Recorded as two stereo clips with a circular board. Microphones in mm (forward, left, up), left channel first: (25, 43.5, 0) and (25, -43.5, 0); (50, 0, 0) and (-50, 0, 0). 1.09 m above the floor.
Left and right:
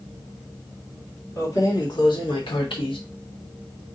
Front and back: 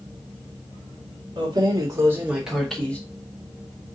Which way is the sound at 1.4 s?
140° left.